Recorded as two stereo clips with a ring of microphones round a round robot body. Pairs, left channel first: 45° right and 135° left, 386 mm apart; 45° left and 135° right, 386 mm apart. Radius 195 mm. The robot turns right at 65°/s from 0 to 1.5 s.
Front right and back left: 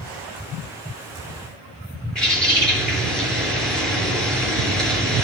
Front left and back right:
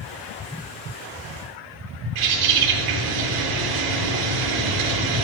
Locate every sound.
2.1 s a bird: 135° right, 3.5 m